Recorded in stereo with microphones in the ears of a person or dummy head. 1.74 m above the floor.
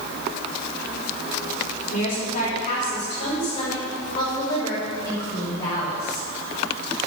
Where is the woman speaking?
35° left (ahead or behind), 5 m; by 6.2 s 10° left (ahead or behind), 7.5 m.